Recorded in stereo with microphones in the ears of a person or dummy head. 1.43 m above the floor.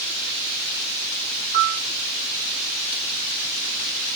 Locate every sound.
1.5 s a piano: 40° right (ahead or behind), 1.3 m